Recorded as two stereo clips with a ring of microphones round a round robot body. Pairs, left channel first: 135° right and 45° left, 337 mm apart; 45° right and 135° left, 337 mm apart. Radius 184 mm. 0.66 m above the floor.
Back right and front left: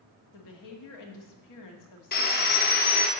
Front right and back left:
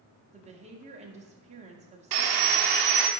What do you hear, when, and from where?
0.3 s a woman speaking: 155° right, 1.3 m
2.1 s sawing: 160° left, 0.8 m